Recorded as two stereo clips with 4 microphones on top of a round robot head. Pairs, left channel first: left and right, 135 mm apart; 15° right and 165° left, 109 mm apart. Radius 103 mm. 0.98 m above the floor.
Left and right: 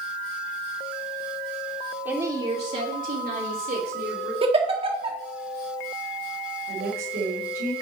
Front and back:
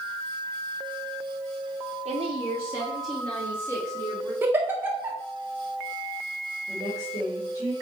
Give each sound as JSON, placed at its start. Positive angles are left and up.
{"t": 2.0, "sound": "a woman speaking", "azimuth_deg": -170, "distance_m": 1.1}
{"t": 4.4, "sound": "a giggle", "azimuth_deg": -125, "distance_m": 1.4}
{"t": 6.7, "sound": "a woman speaking", "azimuth_deg": -75, "distance_m": 3.0}